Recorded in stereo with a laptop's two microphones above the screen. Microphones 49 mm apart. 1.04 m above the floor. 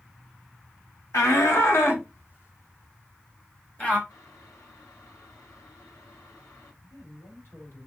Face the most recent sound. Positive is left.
turn(degrees=55)  # may be behind; listen again after turning